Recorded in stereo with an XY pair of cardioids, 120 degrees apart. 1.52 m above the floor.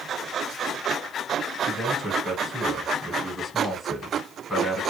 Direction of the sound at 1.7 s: Straight ahead.